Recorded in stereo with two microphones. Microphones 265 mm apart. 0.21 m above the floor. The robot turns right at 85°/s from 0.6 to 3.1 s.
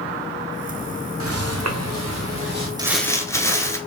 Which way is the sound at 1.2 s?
60° right (ahead or behind).